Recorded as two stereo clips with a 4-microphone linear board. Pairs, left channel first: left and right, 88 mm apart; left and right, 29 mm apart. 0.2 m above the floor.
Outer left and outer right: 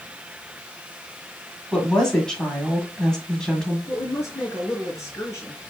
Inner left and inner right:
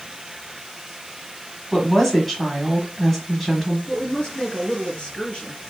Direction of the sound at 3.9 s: 30° left (ahead or behind).